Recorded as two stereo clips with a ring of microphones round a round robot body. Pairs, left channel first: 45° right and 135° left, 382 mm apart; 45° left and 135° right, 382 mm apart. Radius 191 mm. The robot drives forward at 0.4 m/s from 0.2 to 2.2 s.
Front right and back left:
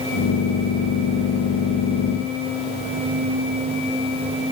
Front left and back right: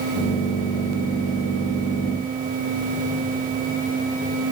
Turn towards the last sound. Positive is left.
No sound to turn to.